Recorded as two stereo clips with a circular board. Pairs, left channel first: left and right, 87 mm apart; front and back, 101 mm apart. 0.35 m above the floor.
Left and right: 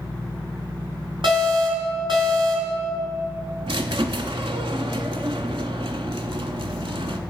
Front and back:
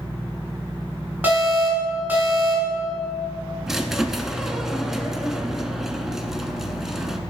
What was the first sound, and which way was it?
An alarm, 105° right.